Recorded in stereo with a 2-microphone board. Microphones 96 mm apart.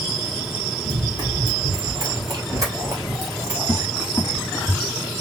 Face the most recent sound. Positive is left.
turn(degrees=40)  # may be behind; listen again after turning